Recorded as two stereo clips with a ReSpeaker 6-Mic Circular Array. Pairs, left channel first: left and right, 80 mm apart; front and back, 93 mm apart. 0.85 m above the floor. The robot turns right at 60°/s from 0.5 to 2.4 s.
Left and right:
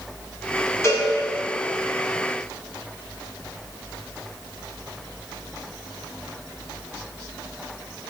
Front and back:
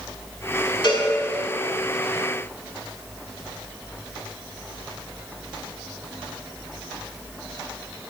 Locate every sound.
0.8 s a cowbell: 35° left, 5.5 m; by 1.1 s 45° left, 5.5 m